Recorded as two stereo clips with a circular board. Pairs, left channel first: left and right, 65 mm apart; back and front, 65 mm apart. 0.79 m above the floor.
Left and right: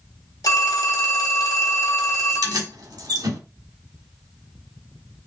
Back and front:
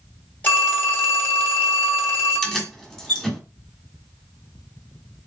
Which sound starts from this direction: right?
Keys jangling, at 2.3 s.